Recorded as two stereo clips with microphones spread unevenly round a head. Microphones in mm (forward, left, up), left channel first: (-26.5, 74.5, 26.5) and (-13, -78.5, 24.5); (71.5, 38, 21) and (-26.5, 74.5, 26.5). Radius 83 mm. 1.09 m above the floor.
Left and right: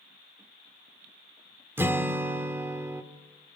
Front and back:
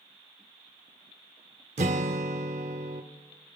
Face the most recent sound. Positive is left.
turn(degrees=-160)